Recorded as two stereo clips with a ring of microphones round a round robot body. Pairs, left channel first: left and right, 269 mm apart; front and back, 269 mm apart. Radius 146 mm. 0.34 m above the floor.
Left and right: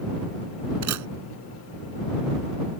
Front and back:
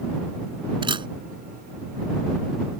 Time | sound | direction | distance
0.8 | a camera shutter | 110° right | ?